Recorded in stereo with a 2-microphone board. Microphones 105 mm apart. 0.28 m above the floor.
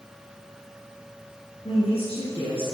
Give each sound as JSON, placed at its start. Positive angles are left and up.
{"t": 1.6, "sound": "a woman speaking", "side_deg": 70, "distance_m": 3.5}